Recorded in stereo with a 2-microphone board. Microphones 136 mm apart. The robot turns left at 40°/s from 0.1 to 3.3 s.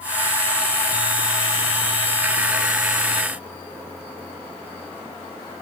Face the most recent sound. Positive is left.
No sound to turn to.